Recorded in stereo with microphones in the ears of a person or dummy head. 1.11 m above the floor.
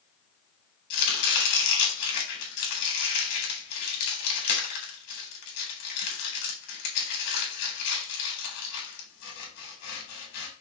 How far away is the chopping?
About 4 m.